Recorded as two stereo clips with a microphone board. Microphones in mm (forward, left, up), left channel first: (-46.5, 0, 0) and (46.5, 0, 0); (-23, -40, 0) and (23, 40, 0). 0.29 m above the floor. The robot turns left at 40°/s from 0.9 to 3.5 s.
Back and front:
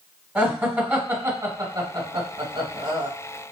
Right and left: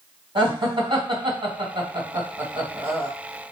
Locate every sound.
0.3 s laughter: 70° left, 2.0 m; by 3.1 s 20° right, 2.0 m